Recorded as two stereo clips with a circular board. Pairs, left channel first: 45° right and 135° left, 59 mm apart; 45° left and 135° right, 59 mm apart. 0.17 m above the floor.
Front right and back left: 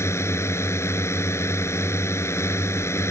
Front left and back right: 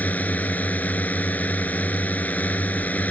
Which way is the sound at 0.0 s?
15° right.